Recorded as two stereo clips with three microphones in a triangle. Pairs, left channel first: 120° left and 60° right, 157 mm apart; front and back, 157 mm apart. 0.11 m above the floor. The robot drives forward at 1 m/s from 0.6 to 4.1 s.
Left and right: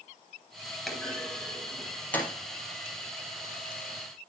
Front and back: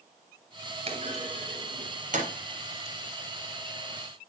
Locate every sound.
0.9 s a clunk: 150° right, 2.5 m; by 2.3 s 165° right, 3.5 m